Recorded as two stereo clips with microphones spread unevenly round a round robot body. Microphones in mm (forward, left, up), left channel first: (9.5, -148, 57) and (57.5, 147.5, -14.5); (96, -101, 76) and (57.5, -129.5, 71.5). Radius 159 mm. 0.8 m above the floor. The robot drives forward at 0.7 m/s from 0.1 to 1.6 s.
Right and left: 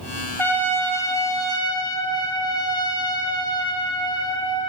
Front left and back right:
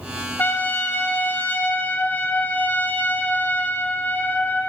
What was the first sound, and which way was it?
A trumpet, 10° right.